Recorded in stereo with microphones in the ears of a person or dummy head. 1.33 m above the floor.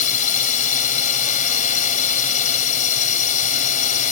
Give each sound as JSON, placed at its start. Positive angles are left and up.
{"t": 0.0, "sound": "a drone", "side_deg": 45}